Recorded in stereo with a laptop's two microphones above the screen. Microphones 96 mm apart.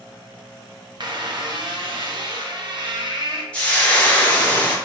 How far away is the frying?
About 0.8 m.